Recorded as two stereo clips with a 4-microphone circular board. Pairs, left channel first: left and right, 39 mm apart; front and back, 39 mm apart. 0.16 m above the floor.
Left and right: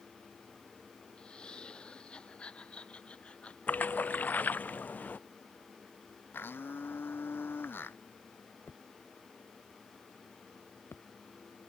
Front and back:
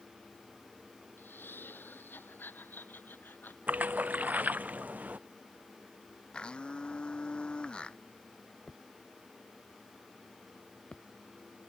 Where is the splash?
135° left.